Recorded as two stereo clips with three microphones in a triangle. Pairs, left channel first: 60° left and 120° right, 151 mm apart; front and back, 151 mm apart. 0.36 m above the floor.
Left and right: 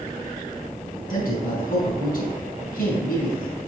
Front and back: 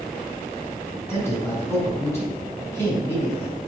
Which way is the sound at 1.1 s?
70° left.